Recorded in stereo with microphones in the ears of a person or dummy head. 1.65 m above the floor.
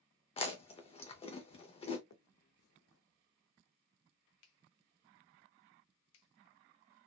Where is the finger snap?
70° left (ahead or behind), 0.6 m.